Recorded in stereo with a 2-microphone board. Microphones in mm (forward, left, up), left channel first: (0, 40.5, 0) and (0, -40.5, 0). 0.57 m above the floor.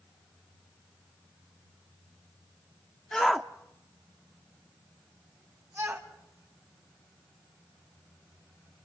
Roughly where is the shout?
Centre.